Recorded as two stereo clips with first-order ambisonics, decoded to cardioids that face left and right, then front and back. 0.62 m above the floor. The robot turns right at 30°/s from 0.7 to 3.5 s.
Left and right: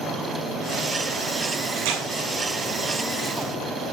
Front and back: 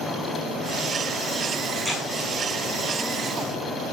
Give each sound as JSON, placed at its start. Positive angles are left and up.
{"t": 1.8, "sound": "tearing paper", "azimuth_deg": -95, "distance_m": 7.0}